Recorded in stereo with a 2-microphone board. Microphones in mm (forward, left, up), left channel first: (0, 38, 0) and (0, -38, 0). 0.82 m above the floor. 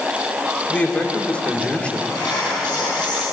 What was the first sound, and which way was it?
A man speaking, 15° left (ahead or behind).